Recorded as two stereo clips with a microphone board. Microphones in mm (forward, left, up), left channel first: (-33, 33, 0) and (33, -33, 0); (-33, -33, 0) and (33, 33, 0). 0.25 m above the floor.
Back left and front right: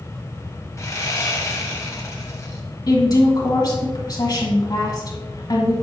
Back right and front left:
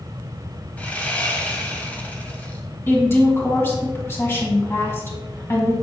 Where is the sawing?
165° left, 1.2 m.